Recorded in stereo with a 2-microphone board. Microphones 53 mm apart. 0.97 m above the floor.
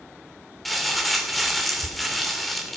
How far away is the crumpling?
About 2.5 m.